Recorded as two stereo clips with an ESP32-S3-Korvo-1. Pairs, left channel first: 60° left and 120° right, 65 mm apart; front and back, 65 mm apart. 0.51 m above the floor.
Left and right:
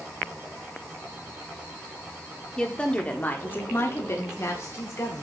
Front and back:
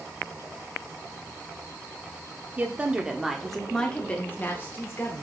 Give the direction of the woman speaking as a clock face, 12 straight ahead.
8 o'clock.